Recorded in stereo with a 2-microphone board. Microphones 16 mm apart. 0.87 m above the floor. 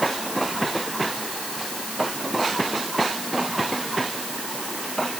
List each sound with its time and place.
Only background noise.